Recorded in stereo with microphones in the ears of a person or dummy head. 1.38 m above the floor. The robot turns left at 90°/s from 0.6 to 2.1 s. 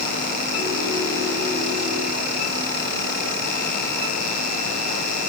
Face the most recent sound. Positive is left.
No sound to turn to.